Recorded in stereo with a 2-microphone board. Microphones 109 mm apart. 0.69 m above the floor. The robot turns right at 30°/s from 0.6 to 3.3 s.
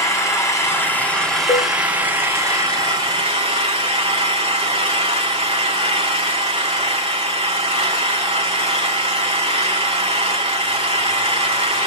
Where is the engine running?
155° left, 3 m; by 11.9 s 125° right, 3 m.